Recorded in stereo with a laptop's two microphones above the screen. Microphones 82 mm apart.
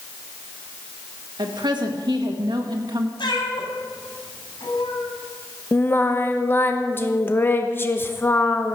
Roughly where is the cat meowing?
Left.